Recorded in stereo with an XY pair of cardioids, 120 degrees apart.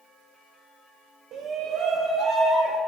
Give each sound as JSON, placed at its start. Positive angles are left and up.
{"t": 1.3, "sound": "a shout", "azimuth_deg": -60, "distance_m": 0.8}